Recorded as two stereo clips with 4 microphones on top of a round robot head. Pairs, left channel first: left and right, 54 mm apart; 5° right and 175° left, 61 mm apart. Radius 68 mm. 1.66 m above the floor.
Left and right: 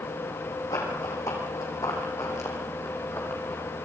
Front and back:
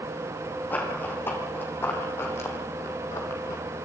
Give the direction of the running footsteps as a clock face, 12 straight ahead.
10 o'clock.